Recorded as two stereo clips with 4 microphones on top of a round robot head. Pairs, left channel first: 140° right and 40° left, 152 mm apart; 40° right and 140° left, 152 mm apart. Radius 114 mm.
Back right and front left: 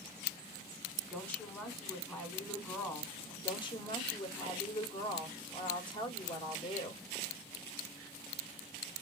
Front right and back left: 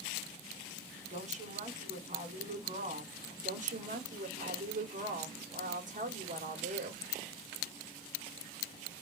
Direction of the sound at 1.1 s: 140° left.